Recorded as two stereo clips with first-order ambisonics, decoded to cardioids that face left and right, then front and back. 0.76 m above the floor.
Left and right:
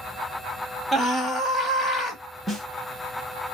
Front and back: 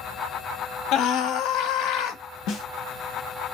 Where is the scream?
15° right, 0.8 m.